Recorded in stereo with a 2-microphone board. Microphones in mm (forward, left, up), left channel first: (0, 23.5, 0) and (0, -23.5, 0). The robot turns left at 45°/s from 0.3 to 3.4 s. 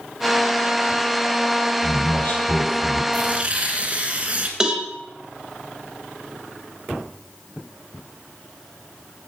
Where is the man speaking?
165° left, 4 m; by 3.0 s 115° left, 4 m.